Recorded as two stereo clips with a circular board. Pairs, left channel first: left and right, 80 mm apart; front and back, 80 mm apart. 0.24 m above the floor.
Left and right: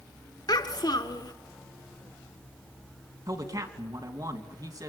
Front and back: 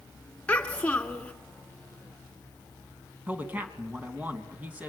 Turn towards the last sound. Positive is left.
turn(degrees=-115)